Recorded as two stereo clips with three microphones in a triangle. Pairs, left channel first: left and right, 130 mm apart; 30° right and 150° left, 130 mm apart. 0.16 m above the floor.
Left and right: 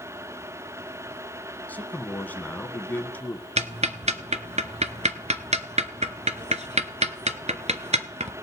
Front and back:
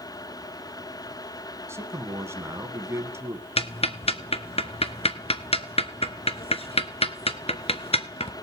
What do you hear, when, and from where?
1.7 s a man speaking: 140° left, 1.0 m
3.6 s ticking: 65° right, 0.8 m